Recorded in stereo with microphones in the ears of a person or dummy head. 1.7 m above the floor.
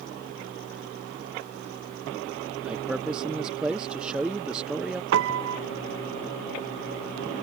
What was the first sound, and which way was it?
A man speaking, 5° right (ahead or behind).